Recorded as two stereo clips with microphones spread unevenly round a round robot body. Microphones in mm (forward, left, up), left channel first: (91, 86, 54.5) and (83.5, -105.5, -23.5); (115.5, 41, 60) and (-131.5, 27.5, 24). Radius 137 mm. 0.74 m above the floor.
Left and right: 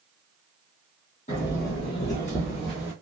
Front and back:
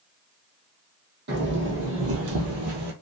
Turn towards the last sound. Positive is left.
turn(degrees=170)